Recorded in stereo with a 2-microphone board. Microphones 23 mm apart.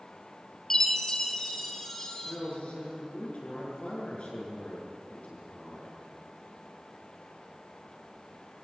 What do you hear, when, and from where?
0.7 s a chime: 20° left (ahead or behind), 2 m
2.2 s a man speaking: 55° left (ahead or behind), 8 m